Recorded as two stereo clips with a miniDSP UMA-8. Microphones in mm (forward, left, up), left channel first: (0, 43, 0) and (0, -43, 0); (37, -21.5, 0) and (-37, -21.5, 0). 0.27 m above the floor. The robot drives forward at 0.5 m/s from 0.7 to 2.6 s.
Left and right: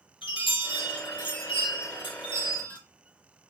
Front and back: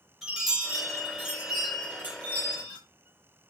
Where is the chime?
95° left, 3 m; by 2.8 s 115° left, 3 m.